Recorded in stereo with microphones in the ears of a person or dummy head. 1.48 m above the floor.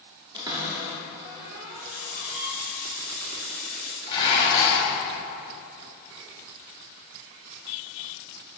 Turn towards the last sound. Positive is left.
turn(degrees=25)  # may be behind; listen again after turning